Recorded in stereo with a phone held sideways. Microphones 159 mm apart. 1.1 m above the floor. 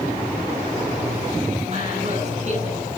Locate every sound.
1.6 s a woman speaking: 50° right (ahead or behind), 10 m